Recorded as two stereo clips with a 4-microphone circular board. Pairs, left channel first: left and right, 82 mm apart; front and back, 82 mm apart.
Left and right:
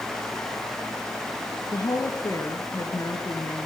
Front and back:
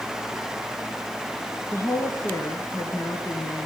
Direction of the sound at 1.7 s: 45° left.